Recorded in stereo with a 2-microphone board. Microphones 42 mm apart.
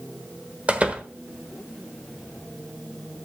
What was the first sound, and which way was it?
A door slam, 30° right (ahead or behind).